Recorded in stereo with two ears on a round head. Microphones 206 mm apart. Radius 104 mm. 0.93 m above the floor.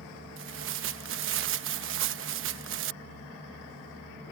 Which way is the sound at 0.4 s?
60° right (ahead or behind).